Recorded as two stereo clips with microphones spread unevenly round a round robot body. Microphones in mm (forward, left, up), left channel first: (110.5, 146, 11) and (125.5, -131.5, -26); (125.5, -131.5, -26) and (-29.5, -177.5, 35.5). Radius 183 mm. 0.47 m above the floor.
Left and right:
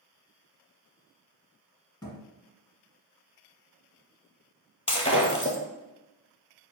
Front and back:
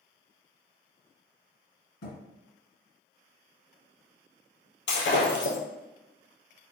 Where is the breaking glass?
25° left, 1.6 m.